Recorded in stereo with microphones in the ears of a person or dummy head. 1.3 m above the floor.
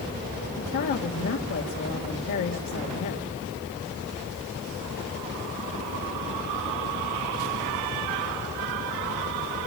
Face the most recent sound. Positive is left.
turn(degrees=75)  # may be behind; listen again after turning